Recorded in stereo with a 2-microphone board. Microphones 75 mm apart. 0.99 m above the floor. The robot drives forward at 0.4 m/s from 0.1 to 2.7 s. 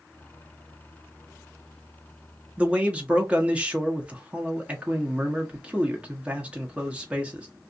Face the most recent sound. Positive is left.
turn(degrees=-15)  # may be behind; listen again after turning